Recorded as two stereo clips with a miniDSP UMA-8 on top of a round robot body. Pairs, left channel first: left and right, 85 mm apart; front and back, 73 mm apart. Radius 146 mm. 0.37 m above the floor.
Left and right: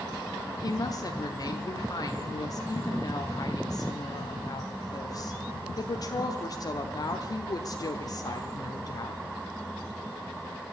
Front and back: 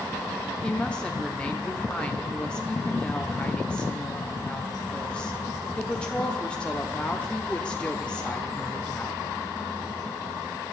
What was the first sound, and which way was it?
A woman speaking, 75° left.